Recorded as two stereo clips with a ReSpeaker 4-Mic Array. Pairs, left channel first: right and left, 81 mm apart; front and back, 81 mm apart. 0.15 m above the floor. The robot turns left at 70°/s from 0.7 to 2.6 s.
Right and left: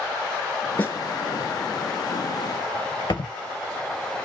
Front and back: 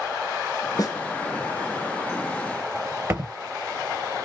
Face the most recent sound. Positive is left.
turn(degrees=-115)